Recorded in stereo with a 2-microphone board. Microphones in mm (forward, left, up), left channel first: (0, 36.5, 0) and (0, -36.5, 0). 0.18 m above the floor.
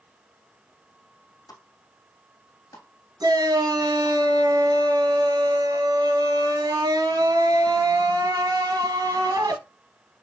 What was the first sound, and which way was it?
A pop, 55° left (ahead or behind).